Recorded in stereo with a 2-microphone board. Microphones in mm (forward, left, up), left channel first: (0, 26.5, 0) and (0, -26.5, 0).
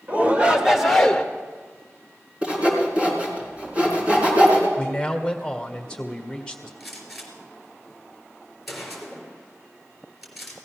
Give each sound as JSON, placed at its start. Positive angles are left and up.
{"t": 0.1, "sound": "a shout", "side_deg": -35, "distance_m": 2.0}
{"t": 2.4, "sound": "sawing", "side_deg": -25, "distance_m": 4.0}
{"t": 4.8, "sound": "a man speaking", "side_deg": 15, "distance_m": 1.8}
{"t": 6.8, "sound": "a gunshot", "side_deg": 0, "distance_m": 3.5}